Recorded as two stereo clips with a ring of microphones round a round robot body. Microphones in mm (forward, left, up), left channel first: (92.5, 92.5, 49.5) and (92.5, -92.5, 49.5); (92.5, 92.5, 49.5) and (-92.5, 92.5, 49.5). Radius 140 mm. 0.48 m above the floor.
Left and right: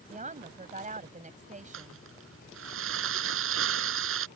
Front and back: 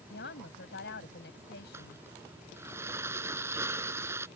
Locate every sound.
0.1 s a woman speaking: 40° right
1.7 s crumpling: 100° right